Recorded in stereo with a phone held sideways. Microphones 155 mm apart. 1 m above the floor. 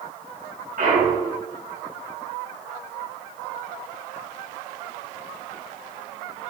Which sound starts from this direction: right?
A clunk, at 0.8 s.